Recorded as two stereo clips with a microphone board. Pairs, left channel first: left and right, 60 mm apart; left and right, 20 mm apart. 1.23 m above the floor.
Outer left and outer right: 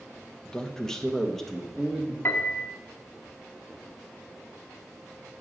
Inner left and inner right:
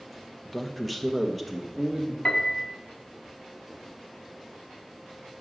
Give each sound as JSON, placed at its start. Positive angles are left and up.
{"t": 0.5, "sound": "a man speaking", "side_deg": 10, "distance_m": 0.9}
{"t": 2.2, "sound": "a piano", "side_deg": 45, "distance_m": 1.2}